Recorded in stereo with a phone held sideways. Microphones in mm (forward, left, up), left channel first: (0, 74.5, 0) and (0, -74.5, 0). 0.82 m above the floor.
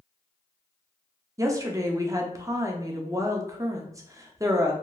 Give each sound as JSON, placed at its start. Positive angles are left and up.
{"t": 1.4, "sound": "a woman speaking", "side_deg": -20, "distance_m": 0.5}